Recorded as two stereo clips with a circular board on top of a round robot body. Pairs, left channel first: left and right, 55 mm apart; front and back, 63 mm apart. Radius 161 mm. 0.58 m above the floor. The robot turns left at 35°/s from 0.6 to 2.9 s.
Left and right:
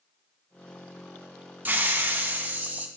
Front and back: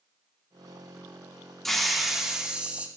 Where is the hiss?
80° right, 1.0 m; by 2.9 s 125° right, 1.0 m.